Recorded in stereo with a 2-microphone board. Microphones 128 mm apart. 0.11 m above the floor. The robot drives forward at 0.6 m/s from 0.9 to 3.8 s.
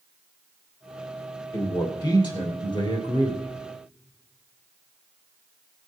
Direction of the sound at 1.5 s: 30° left (ahead or behind).